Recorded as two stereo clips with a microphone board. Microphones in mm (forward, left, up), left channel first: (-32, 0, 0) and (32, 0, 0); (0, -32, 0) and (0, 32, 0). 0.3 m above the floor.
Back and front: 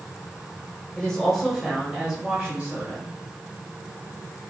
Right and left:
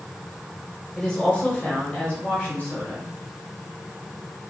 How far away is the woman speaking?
About 1.1 m.